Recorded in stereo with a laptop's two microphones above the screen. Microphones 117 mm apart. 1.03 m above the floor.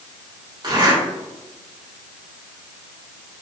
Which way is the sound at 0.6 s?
40° right (ahead or behind).